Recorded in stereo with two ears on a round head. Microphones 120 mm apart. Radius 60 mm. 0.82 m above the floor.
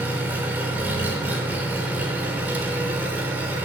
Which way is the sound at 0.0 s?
15° right (ahead or behind).